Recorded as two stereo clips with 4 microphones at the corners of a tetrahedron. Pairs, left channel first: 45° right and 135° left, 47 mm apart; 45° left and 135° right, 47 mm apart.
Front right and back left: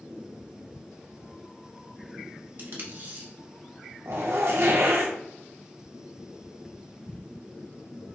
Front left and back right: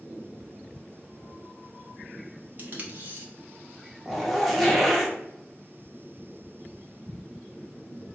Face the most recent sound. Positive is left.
turn(degrees=135)